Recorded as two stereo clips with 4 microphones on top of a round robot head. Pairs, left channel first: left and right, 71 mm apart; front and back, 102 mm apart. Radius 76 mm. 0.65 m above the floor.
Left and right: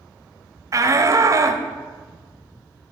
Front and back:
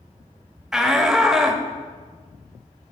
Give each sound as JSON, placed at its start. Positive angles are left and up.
{"t": 0.7, "sound": "a shout", "azimuth_deg": -95, "distance_m": 1.1}